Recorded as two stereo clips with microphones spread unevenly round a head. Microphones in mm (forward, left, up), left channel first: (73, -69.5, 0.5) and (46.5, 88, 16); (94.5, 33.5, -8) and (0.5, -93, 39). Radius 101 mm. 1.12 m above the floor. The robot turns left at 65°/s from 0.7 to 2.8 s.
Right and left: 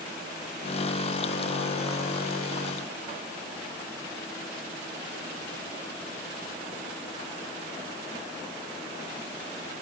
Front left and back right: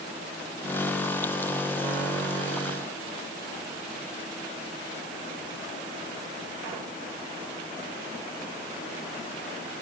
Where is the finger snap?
No finger snap in this recording.